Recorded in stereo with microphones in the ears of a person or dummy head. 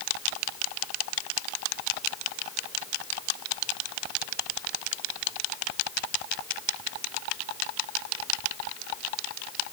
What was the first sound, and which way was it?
Only background noise.